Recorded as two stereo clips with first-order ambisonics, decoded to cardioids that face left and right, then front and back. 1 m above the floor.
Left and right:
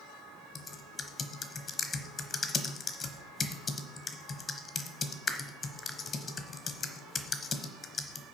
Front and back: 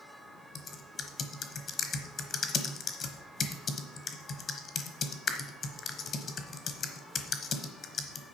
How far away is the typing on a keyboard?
About 0.9 m.